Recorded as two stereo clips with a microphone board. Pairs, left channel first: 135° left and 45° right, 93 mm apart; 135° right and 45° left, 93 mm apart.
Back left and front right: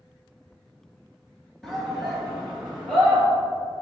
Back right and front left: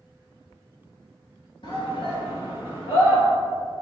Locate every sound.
1.6 s a shout: 140° right, 2 m; by 3.2 s 125° right, 3.5 m